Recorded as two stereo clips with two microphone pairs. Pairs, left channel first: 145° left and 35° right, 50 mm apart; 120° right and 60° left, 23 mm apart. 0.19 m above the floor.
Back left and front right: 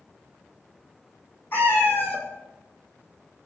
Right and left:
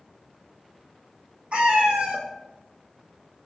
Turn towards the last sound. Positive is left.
turn(degrees=100)